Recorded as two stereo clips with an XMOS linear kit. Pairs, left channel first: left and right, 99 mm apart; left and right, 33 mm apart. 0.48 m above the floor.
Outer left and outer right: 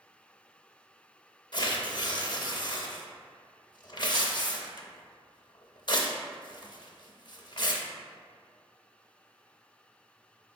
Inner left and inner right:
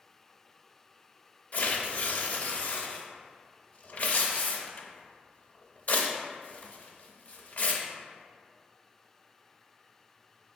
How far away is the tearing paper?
About 0.5 m.